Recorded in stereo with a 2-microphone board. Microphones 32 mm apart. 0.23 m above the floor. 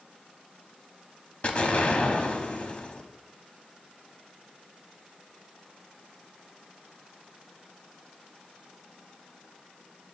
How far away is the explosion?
About 0.7 m.